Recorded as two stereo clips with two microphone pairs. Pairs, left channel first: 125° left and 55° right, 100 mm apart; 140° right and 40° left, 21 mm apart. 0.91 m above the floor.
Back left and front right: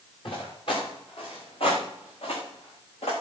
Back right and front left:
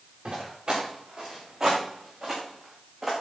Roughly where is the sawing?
No sawing in this recording.